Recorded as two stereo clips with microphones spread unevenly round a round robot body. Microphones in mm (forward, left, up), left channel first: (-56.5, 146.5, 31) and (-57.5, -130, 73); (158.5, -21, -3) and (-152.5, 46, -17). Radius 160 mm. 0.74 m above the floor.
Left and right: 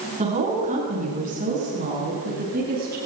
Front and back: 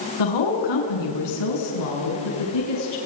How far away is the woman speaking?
About 7.5 m.